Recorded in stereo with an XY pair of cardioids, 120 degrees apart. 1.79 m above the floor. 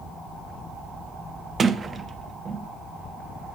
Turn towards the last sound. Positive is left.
turn(degrees=-30)